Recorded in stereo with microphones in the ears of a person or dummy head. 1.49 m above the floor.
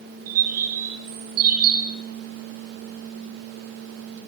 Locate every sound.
0.3 s a bird: 55° right (ahead or behind), 5 m